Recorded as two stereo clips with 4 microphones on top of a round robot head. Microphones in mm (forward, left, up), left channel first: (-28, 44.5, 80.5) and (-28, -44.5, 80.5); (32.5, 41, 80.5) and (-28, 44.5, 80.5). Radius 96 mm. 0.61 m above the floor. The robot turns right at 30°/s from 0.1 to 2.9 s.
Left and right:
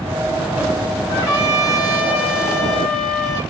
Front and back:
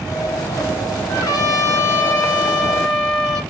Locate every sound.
1.1 s a trumpet: 20° left, 1.1 m; by 3.4 s 75° left, 1.1 m